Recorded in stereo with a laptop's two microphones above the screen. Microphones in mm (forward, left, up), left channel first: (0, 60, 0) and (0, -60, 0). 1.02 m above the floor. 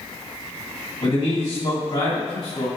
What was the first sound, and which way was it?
A man speaking, 60° left (ahead or behind).